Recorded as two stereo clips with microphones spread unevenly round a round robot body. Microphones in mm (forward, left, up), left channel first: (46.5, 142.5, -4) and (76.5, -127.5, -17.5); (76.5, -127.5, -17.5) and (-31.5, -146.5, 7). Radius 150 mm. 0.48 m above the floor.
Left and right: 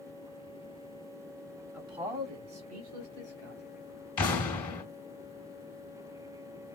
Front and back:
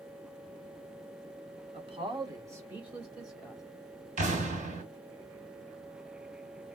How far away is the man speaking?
About 1.1 m.